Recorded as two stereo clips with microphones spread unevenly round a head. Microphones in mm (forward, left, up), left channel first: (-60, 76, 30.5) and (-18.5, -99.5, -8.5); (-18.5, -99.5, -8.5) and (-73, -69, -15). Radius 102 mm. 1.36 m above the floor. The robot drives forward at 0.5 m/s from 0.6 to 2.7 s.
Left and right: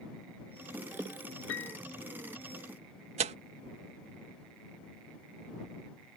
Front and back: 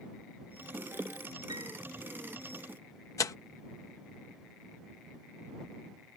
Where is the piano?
95° left.